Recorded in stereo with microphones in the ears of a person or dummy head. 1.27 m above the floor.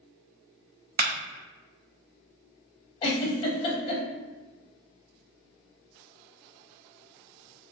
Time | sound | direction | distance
1.0 | a clap | 45° right (ahead or behind) | 0.6 m
3.0 | a giggle | 25° left (ahead or behind) | 0.9 m